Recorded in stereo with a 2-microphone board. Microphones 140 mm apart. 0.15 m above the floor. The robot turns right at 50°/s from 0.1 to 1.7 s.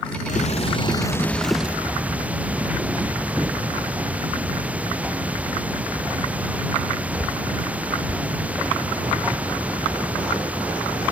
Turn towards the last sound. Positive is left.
turn(degrees=-170)